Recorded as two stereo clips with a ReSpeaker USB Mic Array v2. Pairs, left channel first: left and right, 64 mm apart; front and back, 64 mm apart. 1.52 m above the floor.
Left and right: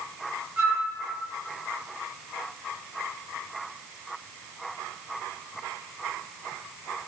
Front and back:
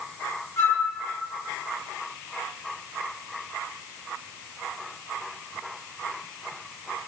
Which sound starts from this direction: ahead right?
A flute, at 0.6 s.